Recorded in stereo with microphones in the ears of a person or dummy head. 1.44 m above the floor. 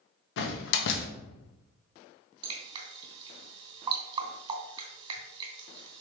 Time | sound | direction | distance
0.4 | a door slam | 65° left (ahead or behind) | 1.0 m
2.4 | dripping | 30° right (ahead or behind) | 3 m